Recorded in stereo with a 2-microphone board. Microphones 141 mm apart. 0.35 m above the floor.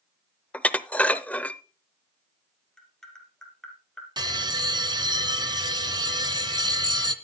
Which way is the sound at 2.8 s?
5° left (ahead or behind).